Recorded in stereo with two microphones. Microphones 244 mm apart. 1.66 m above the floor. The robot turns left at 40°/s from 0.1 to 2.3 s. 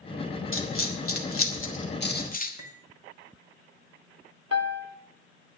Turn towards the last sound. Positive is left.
turn(degrees=80)